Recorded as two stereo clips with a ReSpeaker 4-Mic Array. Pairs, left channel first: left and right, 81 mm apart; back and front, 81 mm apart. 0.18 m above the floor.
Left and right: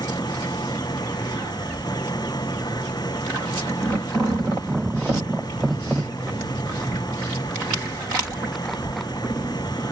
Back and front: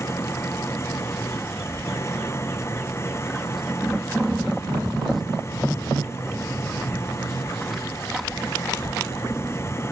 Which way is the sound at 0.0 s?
120° left.